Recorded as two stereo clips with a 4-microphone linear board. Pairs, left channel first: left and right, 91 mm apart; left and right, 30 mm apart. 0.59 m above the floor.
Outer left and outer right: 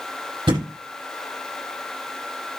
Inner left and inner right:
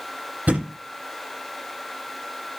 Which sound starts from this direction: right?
A thud, at 0.5 s.